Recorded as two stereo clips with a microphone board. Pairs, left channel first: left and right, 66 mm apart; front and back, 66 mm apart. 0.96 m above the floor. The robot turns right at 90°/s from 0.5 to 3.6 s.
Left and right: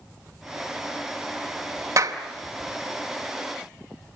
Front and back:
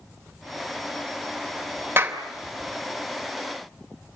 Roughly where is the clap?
Behind right.